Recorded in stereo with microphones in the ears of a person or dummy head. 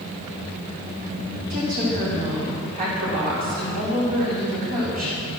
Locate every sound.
1.5 s a woman speaking: 45° right (ahead or behind), 4.5 m